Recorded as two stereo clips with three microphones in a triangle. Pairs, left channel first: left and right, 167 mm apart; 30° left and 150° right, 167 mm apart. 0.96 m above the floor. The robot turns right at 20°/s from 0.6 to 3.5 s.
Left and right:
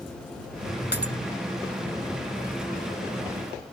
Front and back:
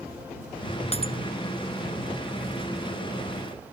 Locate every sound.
0.9 s breaking glass: 80° left; by 1.1 s 85° left